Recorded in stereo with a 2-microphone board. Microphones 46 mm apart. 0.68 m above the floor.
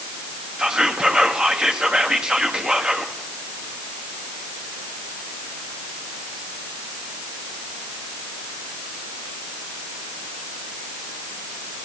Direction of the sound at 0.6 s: 15° right (ahead or behind).